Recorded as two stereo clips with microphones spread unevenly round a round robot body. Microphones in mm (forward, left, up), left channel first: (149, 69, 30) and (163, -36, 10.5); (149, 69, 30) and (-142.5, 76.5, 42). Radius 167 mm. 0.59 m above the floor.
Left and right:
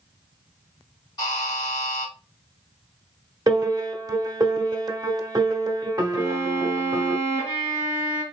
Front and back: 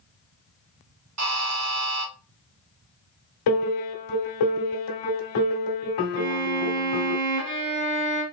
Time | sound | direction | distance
1.2 | a buzzer | 160° left | 1.2 m
3.5 | a piano | 25° right | 1.1 m
6.2 | a violin | 160° left | 1.1 m